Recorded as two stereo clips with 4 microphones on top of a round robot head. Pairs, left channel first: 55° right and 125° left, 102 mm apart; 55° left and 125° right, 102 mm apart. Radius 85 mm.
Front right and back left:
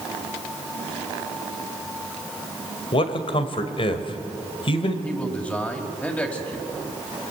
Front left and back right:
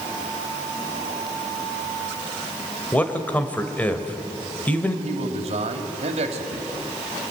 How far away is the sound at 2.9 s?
About 2.0 m.